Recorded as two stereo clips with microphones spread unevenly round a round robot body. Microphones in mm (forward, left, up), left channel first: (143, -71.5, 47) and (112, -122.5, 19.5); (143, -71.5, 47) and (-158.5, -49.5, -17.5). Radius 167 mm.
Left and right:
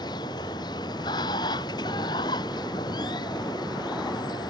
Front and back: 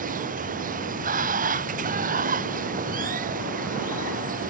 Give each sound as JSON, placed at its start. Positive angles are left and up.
{"t": 0.0, "sound": "running water", "azimuth_deg": 110}